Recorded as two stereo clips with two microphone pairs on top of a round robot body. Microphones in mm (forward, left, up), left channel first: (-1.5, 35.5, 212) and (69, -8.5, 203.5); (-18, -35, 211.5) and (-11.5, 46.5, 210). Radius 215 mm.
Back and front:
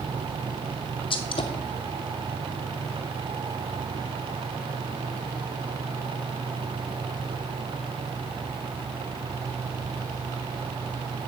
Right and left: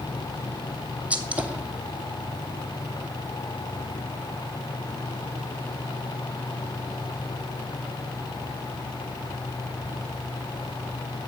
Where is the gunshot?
160° left, 0.7 m.